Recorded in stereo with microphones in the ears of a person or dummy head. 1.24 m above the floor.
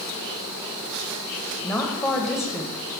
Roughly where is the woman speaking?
Centre.